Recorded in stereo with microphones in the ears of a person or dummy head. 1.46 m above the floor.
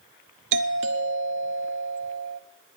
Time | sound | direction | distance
0.5 | a doorbell | 65° right (ahead or behind) | 1.0 m